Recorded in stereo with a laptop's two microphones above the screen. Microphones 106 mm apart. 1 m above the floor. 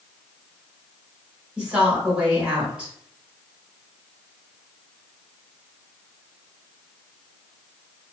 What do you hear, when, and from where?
1.6 s a woman speaking: 10° right (ahead or behind), 1.3 m